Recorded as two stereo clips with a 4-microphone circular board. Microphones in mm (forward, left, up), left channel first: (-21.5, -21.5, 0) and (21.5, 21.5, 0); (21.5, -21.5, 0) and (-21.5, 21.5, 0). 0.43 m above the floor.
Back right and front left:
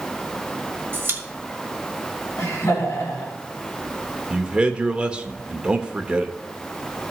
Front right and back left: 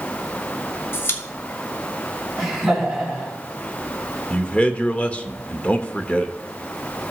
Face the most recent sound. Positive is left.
turn(degrees=-5)